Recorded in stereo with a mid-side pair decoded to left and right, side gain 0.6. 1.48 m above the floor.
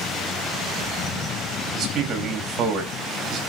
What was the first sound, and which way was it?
A man speaking, 45° right.